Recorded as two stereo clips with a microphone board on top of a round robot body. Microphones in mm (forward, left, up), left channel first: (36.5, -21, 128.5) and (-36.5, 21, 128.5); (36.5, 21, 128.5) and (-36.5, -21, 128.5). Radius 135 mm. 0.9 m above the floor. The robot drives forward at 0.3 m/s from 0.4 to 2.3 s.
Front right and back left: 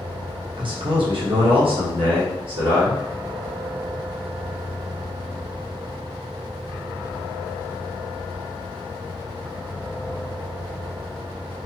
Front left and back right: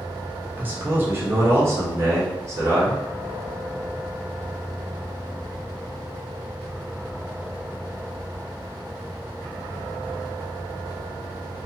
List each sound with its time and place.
0.6 s a man speaking: 145° left, 1.0 m; by 3.0 s 155° left, 1.4 m